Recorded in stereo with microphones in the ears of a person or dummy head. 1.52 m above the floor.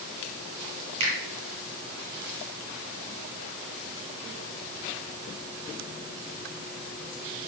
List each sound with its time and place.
1.0 s a finger snap: 80° right, 3 m